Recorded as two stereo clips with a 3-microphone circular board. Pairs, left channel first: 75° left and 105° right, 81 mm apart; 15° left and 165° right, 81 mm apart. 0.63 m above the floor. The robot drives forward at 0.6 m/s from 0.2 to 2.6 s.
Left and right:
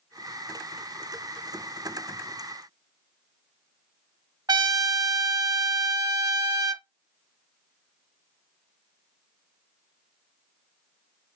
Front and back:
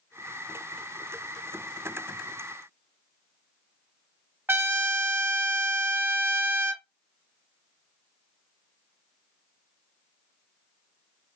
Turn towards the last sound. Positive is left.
turn(degrees=-110)